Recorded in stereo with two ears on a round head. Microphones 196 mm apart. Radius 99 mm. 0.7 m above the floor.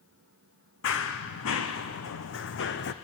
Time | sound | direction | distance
0.8 | running footsteps | 65° left (ahead or behind) | 2.0 m